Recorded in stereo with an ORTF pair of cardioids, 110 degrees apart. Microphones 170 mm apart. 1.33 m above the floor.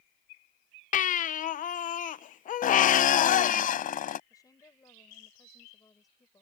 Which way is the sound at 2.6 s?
55° left.